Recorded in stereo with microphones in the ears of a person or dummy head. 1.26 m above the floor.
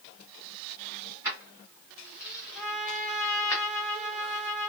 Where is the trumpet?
20° left (ahead or behind), 1.4 m.